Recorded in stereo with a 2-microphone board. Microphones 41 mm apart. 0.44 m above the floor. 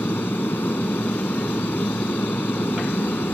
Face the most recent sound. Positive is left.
turn(degrees=70)  # may be behind; listen again after turning